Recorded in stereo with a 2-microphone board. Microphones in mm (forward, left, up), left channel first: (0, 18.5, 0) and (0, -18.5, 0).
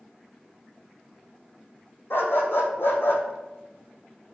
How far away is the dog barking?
About 2.0 m.